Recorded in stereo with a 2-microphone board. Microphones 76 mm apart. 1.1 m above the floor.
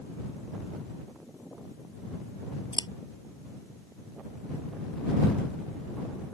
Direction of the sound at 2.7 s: 80° left.